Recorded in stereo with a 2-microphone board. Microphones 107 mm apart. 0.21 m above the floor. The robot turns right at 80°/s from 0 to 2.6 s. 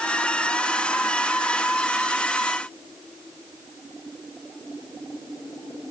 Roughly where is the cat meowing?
I don't hear a cat meowing.